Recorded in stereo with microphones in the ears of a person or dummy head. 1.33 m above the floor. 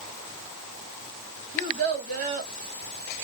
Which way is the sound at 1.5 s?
45° right (ahead or behind).